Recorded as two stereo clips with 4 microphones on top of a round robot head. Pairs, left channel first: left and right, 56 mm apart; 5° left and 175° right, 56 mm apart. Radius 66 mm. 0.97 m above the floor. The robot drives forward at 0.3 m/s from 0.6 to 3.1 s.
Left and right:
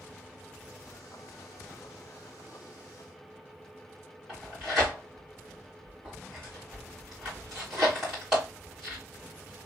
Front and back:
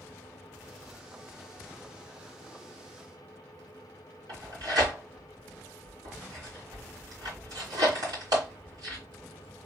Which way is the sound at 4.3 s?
170° right.